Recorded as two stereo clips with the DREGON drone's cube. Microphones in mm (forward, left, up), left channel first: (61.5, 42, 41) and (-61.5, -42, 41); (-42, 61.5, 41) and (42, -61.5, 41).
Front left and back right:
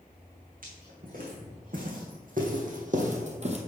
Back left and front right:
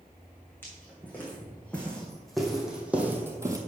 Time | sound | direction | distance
0.6 | footsteps | 160° right | 3 m